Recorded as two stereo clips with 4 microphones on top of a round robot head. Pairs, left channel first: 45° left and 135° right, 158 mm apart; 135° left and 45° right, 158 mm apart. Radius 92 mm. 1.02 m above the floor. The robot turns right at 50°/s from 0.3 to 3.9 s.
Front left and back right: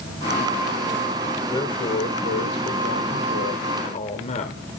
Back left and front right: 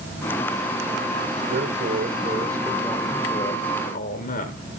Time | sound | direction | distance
1.5 | a man speaking | 25° right | 3 m